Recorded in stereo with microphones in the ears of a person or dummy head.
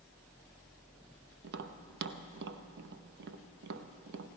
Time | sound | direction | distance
1.4 | tapping | 60° right (ahead or behind) | 0.7 m